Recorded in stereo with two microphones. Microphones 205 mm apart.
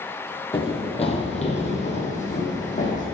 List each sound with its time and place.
0.5 s running footsteps: 25° left (ahead or behind), 1.4 m; by 3.0 s 35° left (ahead or behind), 2.5 m